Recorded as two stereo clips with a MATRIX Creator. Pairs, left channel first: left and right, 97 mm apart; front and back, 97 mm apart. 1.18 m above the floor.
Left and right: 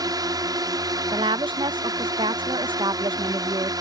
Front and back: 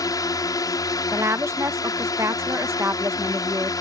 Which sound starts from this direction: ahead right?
A drone, at 0.0 s.